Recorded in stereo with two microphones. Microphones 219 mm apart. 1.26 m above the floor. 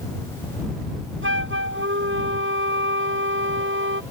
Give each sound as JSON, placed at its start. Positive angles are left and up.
{"t": 1.2, "sound": "a flute", "side_deg": -65}